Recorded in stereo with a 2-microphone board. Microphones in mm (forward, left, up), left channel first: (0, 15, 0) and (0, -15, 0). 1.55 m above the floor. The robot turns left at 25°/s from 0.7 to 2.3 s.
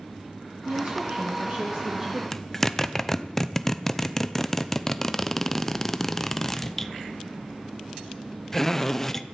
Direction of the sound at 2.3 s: 10° left (ahead or behind).